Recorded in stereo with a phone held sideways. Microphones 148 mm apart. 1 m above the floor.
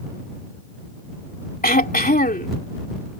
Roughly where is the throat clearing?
Left.